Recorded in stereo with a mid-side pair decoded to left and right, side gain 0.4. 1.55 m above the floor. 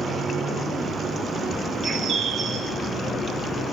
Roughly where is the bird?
Ahead right.